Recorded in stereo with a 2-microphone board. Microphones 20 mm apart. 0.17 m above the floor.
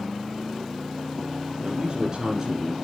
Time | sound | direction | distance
1.6 | a man speaking | 40° right (ahead or behind) | 1.9 m